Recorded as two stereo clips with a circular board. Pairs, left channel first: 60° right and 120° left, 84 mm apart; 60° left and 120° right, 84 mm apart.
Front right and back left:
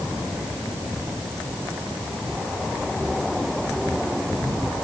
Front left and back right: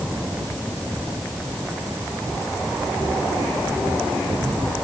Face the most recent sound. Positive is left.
No sound to turn to.